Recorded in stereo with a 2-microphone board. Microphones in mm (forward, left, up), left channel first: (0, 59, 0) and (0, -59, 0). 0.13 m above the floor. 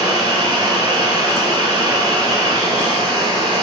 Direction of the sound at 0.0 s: 35° right (ahead or behind).